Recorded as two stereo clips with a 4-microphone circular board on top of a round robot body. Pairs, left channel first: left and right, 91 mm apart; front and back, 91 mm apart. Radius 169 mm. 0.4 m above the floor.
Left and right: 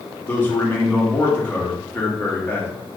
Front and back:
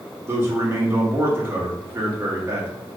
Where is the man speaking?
140° left, 1.1 m.